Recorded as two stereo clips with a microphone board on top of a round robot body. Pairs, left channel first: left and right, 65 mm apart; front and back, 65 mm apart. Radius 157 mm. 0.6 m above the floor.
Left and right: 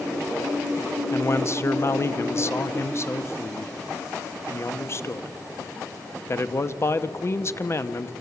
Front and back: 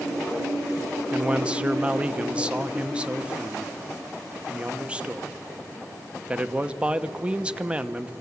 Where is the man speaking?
115° left, 1.2 m.